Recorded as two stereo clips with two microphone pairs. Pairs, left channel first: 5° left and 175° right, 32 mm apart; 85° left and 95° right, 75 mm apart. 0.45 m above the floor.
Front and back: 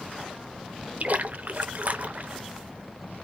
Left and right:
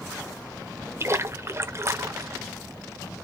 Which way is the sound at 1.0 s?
145° right.